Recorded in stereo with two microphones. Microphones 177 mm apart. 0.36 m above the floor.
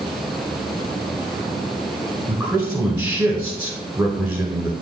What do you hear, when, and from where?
2.3 s a man speaking: 10° right (ahead or behind), 1.3 m